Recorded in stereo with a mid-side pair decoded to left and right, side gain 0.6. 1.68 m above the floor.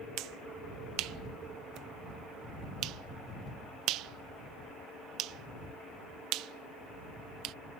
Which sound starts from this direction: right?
A finger snap, at 0.2 s.